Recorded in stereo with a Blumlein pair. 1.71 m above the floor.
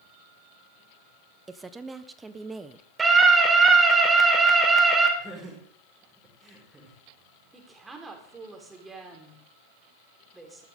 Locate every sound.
1.5 s a woman speaking: 15° right, 1.1 m
3.0 s a scream: 15° right, 5 m
5.2 s laughter: 5° right, 6 m
7.5 s a woman speaking: 10° right, 4.5 m